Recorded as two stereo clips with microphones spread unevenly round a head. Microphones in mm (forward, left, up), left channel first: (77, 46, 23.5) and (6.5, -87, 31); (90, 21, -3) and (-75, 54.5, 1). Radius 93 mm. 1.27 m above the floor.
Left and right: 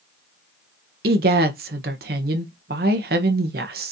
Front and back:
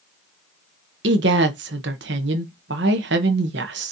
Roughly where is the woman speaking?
Behind right.